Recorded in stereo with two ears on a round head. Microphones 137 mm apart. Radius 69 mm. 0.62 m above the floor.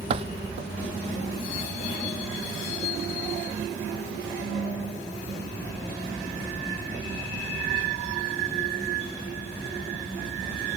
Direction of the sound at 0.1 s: 40° right (ahead or behind).